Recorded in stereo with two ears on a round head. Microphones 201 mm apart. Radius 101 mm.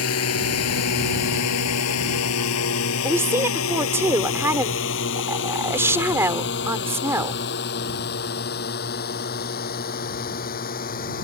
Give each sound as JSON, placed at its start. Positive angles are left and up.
{"t": 0.0, "sound": "a drone", "side_deg": 75}
{"t": 3.0, "sound": "a woman speaking", "side_deg": -10}